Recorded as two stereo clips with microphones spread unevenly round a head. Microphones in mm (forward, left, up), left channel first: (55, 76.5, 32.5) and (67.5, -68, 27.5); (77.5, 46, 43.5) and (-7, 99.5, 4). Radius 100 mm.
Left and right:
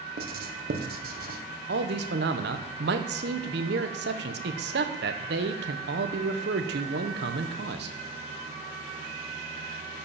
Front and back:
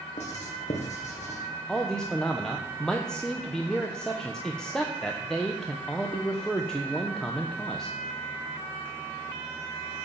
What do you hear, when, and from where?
0.2 s writing: 70° right, 1.3 m
1.7 s a man speaking: 110° right, 1.1 m